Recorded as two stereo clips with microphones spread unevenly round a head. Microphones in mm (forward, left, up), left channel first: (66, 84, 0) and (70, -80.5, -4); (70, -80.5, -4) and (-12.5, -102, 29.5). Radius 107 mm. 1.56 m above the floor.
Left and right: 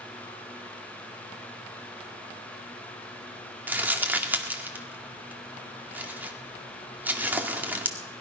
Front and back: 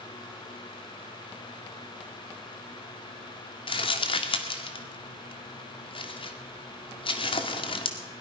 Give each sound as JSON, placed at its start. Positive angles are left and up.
{"t": 3.7, "sound": "crumpling", "azimuth_deg": -10, "distance_m": 2.0}